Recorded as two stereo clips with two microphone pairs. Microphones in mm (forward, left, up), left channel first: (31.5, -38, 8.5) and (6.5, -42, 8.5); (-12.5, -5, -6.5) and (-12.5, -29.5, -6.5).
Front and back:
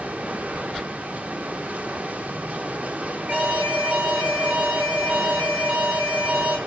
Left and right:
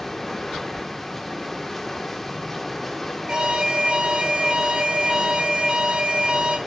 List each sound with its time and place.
0.0 s running water: 170° left, 1.1 m
3.3 s an alarm: 145° right, 3.5 m